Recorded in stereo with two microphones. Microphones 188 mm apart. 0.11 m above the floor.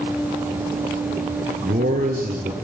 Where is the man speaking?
50° right (ahead or behind), 2.5 m.